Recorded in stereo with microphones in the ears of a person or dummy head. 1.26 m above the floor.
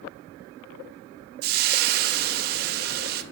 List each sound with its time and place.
1.4 s frying: 50° right (ahead or behind), 0.8 m